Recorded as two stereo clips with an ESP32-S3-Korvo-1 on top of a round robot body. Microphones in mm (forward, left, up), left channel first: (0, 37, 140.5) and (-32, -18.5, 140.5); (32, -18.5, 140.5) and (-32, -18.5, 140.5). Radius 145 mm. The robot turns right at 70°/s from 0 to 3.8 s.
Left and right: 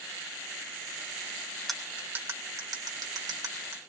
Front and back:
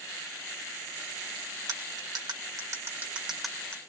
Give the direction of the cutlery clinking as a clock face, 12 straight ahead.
7 o'clock.